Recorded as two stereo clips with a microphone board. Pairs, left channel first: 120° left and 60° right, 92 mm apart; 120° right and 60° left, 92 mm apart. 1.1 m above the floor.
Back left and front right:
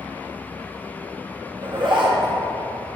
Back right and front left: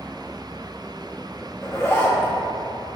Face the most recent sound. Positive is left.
turn(degrees=-60)